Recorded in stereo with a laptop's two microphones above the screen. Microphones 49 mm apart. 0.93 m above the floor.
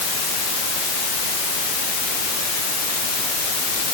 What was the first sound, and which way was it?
Only background noise.